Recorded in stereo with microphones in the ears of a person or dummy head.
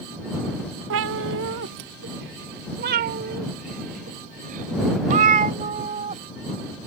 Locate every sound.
0.9 s a cat meowing: 65° right (ahead or behind); by 6.2 s 40° right (ahead or behind)